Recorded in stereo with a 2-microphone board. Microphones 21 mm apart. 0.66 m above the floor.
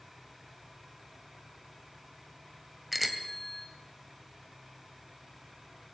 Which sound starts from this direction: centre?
A bicycle bell, at 2.9 s.